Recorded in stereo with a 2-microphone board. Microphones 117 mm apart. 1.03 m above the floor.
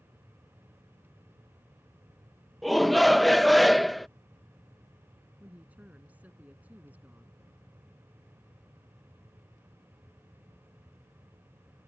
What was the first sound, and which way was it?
A shout, centre (ahead or behind).